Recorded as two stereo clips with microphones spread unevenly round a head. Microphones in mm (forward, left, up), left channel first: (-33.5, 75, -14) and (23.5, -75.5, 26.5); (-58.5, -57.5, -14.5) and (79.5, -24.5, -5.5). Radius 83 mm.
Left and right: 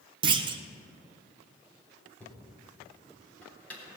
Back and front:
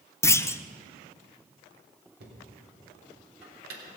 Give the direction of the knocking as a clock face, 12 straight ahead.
11 o'clock.